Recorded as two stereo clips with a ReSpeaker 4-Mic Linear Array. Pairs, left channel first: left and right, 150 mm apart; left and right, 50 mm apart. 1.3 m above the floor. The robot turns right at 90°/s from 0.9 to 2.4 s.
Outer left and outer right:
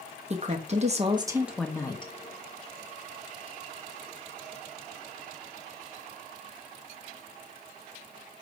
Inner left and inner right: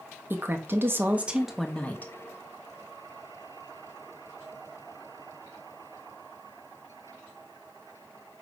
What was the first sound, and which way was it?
A woman speaking, 60° right.